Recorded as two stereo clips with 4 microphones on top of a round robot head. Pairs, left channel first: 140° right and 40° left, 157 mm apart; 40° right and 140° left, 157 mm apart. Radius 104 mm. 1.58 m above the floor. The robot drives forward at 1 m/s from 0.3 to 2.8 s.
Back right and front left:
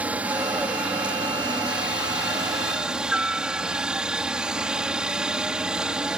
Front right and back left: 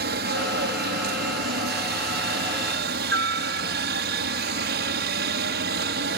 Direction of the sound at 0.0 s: 125° left.